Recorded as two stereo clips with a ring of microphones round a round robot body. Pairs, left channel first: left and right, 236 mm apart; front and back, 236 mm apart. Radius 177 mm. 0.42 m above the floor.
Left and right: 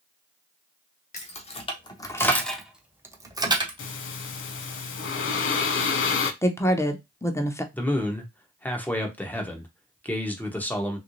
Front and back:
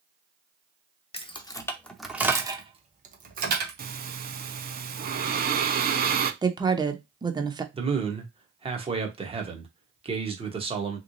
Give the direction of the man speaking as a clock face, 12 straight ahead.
7 o'clock.